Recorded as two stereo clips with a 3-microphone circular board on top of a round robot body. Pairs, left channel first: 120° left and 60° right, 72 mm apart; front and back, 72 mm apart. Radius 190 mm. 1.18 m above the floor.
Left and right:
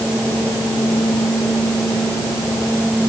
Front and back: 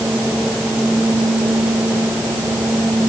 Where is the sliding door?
I don't hear a sliding door.